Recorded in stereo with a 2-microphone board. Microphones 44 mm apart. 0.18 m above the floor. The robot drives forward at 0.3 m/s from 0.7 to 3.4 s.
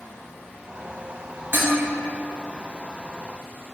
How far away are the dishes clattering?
About 1.1 m.